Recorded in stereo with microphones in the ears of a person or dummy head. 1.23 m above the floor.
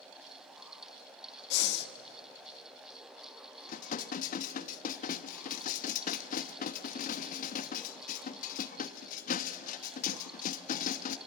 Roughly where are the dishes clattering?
Left.